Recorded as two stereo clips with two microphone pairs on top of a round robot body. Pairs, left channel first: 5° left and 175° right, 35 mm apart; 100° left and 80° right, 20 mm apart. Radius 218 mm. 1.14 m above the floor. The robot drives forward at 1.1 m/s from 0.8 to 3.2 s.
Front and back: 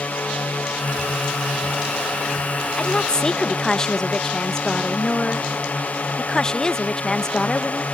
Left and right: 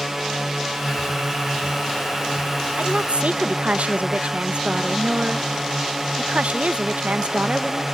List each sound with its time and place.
0.0 s a drone: 5° right
2.8 s a woman speaking: 55° right; by 7.8 s 65° right